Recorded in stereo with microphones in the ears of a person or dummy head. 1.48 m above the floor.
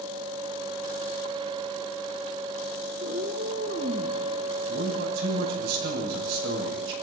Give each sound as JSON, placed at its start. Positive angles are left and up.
{"t": 3.0, "sound": "a cat meowing", "side_deg": -50, "distance_m": 7.0}
{"t": 4.7, "sound": "a man speaking", "side_deg": -75, "distance_m": 8.0}